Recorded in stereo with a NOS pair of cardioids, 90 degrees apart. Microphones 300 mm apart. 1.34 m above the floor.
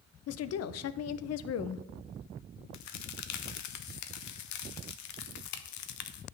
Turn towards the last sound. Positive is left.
turn(degrees=70)